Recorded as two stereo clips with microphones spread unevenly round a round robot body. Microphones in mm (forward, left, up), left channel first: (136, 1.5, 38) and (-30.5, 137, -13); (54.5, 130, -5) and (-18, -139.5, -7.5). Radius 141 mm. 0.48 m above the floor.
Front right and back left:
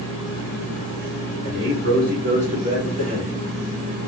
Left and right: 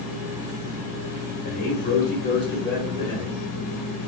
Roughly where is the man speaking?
Behind left.